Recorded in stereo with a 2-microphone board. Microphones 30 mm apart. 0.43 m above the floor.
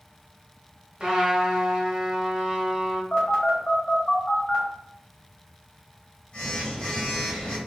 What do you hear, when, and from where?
1.0 s a trumpet: 25° right (ahead or behind), 1.4 m
3.1 s a phone buzzing: 30° left (ahead or behind), 1.6 m